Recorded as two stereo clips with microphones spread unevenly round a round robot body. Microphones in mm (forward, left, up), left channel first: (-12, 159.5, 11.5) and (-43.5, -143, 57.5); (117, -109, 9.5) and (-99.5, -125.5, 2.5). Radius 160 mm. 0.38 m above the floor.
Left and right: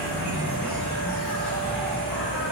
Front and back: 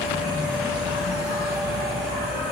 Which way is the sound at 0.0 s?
160° left.